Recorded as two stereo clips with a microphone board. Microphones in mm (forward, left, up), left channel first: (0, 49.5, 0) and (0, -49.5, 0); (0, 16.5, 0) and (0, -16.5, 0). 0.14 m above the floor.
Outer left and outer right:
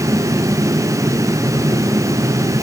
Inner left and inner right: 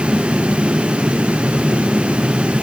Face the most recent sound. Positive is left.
No sound to turn to.